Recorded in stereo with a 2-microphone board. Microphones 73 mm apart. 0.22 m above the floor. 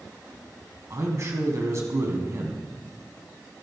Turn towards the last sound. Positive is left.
turn(degrees=-45)  # may be behind; listen again after turning